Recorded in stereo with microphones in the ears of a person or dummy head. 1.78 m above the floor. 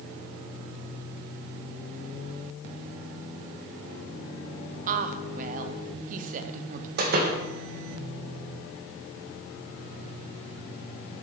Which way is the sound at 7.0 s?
60° right (ahead or behind).